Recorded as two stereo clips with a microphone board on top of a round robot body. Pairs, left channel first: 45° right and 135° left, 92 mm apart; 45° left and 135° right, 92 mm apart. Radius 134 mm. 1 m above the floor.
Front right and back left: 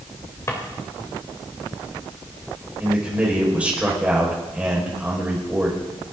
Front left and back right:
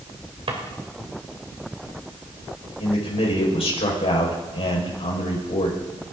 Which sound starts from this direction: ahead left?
A man speaking, at 2.8 s.